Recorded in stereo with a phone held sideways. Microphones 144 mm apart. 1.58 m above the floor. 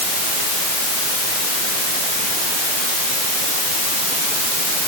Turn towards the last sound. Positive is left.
No sound to turn to.